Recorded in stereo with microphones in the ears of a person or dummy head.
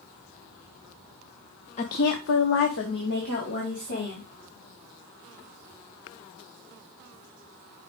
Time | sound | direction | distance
1.8 | a woman speaking | 35° left (ahead or behind) | 0.8 m